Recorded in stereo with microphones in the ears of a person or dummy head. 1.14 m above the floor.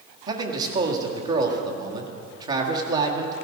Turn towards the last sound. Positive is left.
turn(degrees=-20)  # may be behind; listen again after turning